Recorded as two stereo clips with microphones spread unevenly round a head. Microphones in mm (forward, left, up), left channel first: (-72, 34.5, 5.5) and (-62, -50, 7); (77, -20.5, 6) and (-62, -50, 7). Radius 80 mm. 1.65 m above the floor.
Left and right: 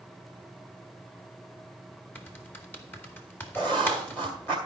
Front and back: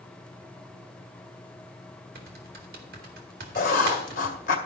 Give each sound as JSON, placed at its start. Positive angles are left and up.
{"t": 2.1, "sound": "typing on a keyboard", "azimuth_deg": 165, "distance_m": 2.0}
{"t": 3.5, "sound": "writing", "azimuth_deg": 25, "distance_m": 2.0}